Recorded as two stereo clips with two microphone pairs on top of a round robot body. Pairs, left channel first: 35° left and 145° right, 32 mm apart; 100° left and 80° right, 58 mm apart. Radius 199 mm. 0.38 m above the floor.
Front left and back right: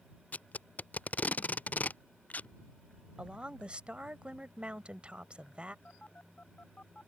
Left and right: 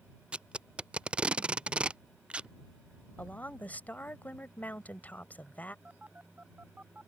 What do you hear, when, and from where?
0.3 s tape being pulled: 5° right
3.2 s a woman speaking: 165° left
5.8 s a phone buzzing: 15° right